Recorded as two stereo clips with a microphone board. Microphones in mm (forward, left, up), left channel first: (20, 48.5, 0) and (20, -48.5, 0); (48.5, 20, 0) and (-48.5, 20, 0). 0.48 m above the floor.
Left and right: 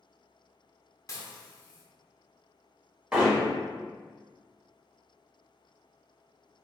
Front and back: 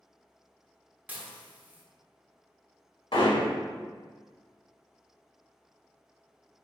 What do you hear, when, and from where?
1.1 s dishes clattering: 120° left, 0.7 m
3.1 s hammering: 10° right, 1.2 m